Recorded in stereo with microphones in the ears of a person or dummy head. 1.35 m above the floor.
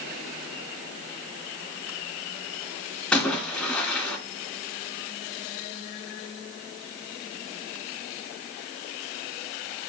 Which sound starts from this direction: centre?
A splash, at 3.1 s.